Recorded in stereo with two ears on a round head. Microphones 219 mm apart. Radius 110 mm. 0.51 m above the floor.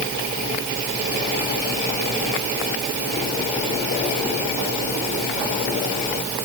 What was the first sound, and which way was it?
Only background noise.